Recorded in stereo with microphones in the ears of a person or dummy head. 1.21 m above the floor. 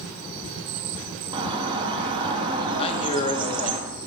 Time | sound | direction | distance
1.3 | a bird | 30° right (ahead or behind) | 0.9 m
2.8 | a man speaking | 30° left (ahead or behind) | 0.7 m